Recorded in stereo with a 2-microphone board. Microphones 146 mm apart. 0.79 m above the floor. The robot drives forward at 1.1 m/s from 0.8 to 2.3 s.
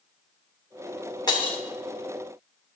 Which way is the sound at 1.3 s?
30° left (ahead or behind).